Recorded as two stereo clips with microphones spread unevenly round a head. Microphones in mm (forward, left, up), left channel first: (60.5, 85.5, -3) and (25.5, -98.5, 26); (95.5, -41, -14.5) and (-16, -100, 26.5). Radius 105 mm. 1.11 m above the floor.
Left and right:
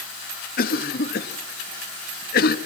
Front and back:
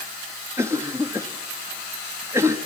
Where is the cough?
130° left, 1.3 m.